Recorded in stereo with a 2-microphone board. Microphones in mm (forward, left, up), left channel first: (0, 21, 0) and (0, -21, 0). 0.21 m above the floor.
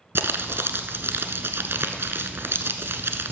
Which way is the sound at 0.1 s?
70° right (ahead or behind).